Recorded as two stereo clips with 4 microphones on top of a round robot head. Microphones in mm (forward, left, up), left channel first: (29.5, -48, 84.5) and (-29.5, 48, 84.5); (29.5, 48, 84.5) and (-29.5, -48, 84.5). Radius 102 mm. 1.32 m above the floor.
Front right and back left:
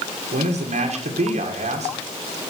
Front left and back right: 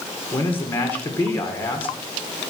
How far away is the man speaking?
About 1.8 m.